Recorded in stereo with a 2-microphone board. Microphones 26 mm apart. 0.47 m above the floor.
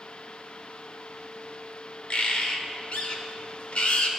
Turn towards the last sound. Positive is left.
turn(degrees=50)  # may be behind; listen again after turning